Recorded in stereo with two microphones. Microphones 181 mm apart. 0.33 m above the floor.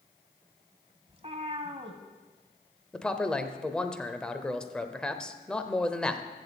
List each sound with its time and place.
1.1 s a cat meowing: 35° right (ahead or behind), 1.1 m
2.9 s a man speaking: 5° left (ahead or behind), 0.8 m